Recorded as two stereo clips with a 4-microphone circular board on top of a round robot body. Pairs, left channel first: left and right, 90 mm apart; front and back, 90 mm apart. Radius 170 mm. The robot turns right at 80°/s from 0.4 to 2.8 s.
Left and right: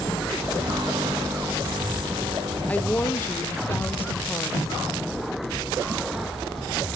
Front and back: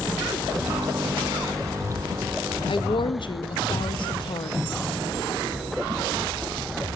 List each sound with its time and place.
2.7 s a woman speaking: 15° left, 2 m; by 4.7 s 25° left, 2 m